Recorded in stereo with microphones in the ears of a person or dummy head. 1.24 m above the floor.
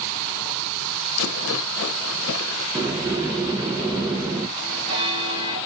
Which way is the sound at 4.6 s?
25° right (ahead or behind).